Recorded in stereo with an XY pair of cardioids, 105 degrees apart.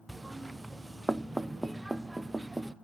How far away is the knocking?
About 0.7 m.